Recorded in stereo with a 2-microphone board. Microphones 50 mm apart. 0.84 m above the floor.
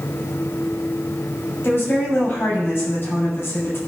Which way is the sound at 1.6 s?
45° left (ahead or behind).